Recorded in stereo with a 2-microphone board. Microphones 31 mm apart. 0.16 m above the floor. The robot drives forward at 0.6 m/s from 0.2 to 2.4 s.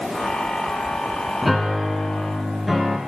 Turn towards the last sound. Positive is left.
turn(degrees=0)  # may be behind; listen again after turning